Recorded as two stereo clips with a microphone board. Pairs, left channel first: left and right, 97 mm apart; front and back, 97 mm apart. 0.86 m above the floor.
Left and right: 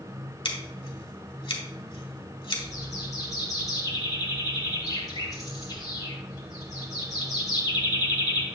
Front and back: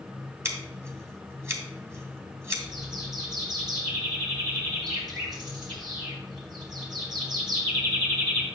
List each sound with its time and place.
0.5 s scissors: 120° left, 1.5 m
2.6 s a bird: 140° left, 2.5 m